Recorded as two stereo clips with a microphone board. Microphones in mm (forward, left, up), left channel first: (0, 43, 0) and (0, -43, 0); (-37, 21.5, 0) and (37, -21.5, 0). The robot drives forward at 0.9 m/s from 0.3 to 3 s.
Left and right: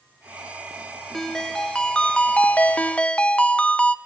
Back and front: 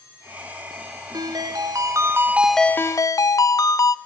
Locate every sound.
1.1 s a ringtone: 5° left, 1.4 m; by 4.0 s 155° left, 0.6 m